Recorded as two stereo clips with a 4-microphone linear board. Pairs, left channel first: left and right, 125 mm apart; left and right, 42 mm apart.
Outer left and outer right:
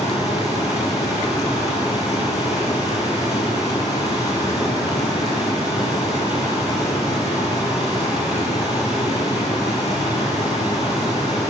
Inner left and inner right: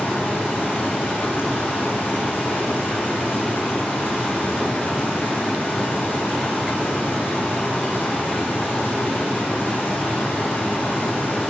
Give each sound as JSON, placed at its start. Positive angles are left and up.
{"t": 0.0, "sound": "running water", "side_deg": 65, "distance_m": 9.0}